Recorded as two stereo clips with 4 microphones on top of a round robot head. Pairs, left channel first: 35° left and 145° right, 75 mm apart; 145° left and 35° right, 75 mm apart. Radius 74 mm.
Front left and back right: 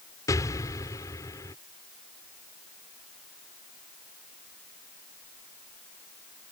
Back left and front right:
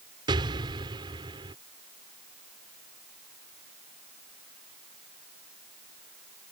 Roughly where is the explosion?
Ahead.